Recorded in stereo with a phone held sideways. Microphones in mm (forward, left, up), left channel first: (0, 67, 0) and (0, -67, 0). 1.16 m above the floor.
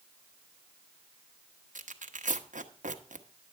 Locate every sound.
1.8 s tearing paper: 75° right (ahead or behind), 1.0 m